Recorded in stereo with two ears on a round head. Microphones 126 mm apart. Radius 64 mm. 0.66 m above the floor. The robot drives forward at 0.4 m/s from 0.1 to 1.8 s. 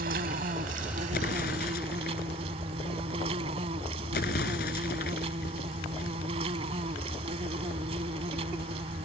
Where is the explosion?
70° left (ahead or behind); by 6.2 s 75° left (ahead or behind).